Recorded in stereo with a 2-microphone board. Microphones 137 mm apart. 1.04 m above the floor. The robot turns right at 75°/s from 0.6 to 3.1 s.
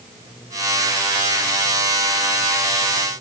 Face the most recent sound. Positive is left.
No sound to turn to.